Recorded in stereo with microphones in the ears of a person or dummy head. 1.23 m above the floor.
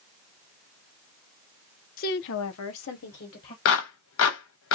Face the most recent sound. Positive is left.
turn(degrees=70)  # may be behind; listen again after turning